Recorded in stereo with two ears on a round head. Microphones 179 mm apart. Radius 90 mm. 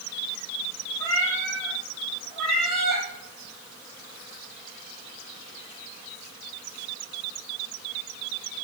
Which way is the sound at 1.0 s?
15° left (ahead or behind).